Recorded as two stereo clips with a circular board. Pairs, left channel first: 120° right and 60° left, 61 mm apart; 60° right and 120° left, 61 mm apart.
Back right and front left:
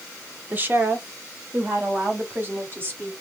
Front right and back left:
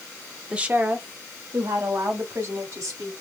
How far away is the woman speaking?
About 0.8 m.